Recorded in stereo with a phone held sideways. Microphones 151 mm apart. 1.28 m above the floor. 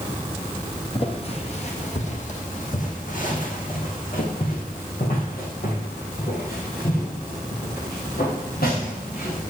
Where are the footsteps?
40° left (ahead or behind), 2.0 m; by 9.4 s 80° left, 6 m.